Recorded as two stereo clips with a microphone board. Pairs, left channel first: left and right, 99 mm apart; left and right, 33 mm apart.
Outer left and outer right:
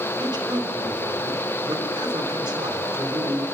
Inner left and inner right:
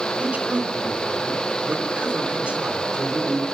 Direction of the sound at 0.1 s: 55° right (ahead or behind).